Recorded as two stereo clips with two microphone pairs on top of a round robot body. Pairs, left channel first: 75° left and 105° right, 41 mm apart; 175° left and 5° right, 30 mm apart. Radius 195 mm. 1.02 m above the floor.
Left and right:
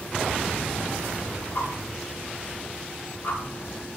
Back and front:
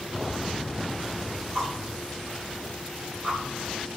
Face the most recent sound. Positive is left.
turn(degrees=55)